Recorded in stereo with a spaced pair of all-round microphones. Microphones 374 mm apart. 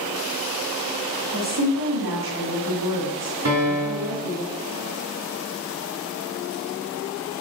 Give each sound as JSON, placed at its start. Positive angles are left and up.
{"t": 1.3, "sound": "a woman speaking", "side_deg": -40, "distance_m": 1.6}
{"t": 3.5, "sound": "a piano", "side_deg": -40, "distance_m": 1.7}